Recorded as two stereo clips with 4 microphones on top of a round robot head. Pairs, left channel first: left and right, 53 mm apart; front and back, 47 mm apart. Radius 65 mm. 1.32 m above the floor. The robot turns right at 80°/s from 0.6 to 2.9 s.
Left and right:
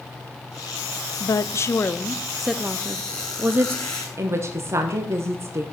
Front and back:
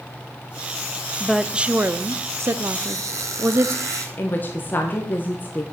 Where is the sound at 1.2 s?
85° left, 0.6 m; by 3.8 s 140° right, 0.6 m.